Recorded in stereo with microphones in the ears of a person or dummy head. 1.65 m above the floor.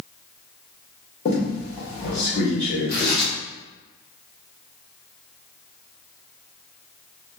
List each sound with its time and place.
1.2 s a squeak: 40° left (ahead or behind), 1.1 m
2.9 s tearing paper: 10° left (ahead or behind), 1.0 m